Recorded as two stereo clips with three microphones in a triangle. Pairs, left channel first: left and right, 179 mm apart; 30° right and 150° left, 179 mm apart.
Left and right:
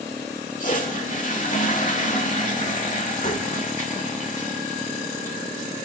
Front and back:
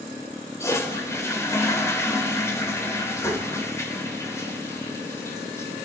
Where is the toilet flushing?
45° left, 1.6 m.